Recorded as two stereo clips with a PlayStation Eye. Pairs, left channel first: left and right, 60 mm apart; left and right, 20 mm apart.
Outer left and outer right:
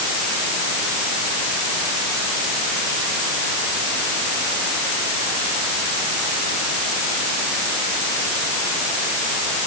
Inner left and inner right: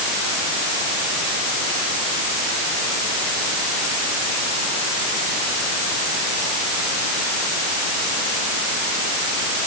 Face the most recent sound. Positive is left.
No sound to turn to.